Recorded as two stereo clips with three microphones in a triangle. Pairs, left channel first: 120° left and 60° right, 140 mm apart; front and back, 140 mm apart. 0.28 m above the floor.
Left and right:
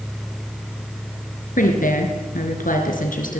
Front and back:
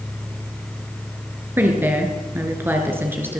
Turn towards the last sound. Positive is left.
turn(degrees=105)